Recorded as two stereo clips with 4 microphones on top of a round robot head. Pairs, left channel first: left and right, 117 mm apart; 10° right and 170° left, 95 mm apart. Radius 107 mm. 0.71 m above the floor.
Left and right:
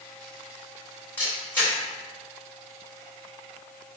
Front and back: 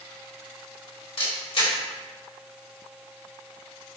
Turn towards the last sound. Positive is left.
turn(degrees=15)